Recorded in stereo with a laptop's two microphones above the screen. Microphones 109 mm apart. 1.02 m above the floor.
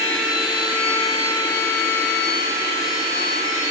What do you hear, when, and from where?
0.0 s a machine running: 40° left (ahead or behind), 1.4 m